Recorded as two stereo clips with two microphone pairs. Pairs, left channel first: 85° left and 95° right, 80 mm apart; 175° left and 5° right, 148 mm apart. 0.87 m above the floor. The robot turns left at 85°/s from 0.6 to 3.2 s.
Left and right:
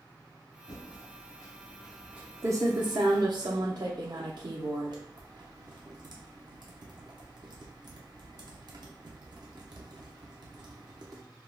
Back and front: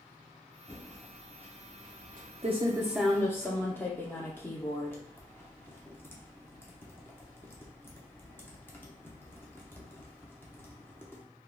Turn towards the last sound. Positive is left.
turn(degrees=-110)